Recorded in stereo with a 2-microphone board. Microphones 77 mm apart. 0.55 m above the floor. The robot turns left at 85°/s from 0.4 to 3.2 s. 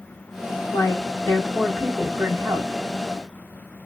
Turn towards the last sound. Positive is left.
turn(degrees=-125)